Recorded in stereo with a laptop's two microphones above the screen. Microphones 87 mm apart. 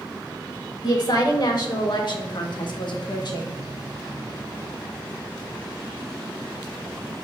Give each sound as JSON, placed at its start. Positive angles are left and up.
{"t": 0.8, "sound": "a woman speaking", "side_deg": 50, "distance_m": 1.8}